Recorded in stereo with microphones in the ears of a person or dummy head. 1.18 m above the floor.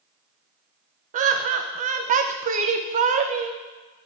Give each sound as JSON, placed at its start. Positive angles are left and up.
{"t": 1.1, "sound": "laughter", "side_deg": -35, "distance_m": 0.5}